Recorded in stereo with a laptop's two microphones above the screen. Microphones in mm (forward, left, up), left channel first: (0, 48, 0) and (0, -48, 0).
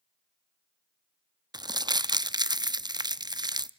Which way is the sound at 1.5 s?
45° right (ahead or behind).